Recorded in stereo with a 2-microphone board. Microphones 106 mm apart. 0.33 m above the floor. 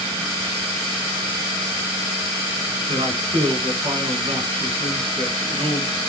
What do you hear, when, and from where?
2.9 s a man speaking: 65° right (ahead or behind), 4.5 m